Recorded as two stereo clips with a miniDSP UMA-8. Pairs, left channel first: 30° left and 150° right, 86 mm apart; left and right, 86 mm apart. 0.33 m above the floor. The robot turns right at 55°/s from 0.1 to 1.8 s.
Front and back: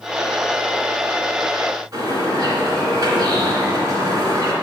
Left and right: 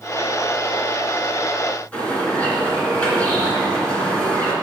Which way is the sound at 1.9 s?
165° left.